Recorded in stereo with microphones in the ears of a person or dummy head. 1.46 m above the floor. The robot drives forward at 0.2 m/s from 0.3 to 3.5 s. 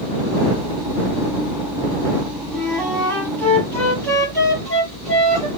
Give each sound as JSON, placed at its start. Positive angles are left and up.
{"t": 2.5, "sound": "a flute", "side_deg": 5, "distance_m": 1.6}